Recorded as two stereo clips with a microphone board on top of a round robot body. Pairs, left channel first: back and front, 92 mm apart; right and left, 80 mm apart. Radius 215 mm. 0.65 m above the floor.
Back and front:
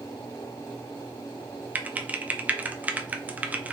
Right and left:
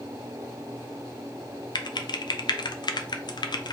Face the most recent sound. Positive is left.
turn(degrees=-70)